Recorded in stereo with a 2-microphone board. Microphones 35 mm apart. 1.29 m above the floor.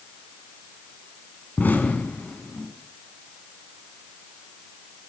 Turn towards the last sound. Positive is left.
turn(degrees=55)  # may be behind; listen again after turning